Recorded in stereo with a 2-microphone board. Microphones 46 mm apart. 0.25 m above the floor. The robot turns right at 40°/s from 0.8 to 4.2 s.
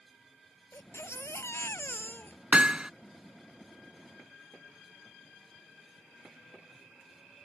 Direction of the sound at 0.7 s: 75° left.